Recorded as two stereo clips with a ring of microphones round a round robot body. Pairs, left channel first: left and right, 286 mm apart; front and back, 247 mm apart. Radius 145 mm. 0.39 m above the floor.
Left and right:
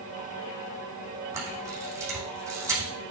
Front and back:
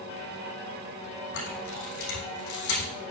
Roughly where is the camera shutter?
Ahead.